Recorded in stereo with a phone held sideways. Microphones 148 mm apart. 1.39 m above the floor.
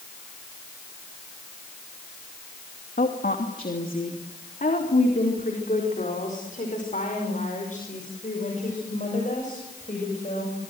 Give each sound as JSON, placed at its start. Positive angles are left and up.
{"t": 3.0, "sound": "a woman speaking", "side_deg": 80, "distance_m": 2.5}